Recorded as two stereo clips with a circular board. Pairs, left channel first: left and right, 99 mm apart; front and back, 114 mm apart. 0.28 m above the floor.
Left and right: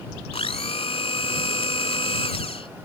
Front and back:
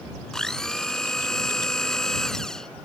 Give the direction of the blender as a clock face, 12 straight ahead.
9 o'clock.